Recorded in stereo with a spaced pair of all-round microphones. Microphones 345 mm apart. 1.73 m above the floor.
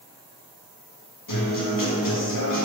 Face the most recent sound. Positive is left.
turn(degrees=65)  # may be behind; listen again after turning